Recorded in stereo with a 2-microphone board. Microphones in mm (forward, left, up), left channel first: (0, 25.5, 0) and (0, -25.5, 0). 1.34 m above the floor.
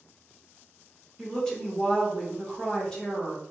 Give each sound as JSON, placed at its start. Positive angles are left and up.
{"t": 1.2, "sound": "a woman speaking", "side_deg": 15, "distance_m": 1.1}